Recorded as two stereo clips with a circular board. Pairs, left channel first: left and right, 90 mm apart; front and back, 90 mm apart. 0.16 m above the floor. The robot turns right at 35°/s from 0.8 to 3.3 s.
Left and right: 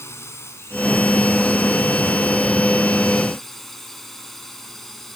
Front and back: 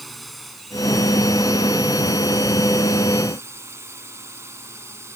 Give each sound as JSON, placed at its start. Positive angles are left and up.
{"t": 0.0, "sound": "a drone", "azimuth_deg": 90}